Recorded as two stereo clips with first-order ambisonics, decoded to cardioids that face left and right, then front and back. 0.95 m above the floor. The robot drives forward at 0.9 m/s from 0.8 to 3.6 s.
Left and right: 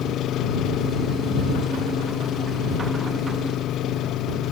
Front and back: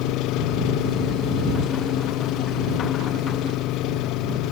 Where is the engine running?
35° left; by 4.5 s 40° left.